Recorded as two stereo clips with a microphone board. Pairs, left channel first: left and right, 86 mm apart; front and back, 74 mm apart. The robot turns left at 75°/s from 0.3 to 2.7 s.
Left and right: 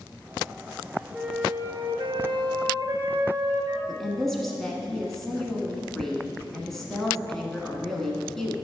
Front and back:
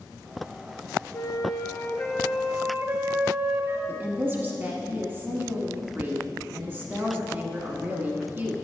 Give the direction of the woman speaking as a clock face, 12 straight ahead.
6 o'clock.